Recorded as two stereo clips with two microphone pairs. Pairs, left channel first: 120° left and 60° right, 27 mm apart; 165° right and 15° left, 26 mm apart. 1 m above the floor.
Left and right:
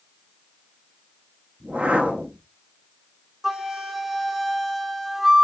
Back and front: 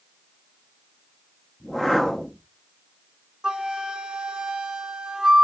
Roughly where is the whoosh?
Right.